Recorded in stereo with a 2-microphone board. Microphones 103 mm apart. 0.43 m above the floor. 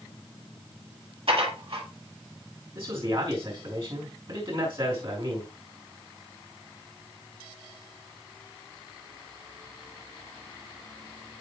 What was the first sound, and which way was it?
Dishes clattering, 65° right (ahead or behind).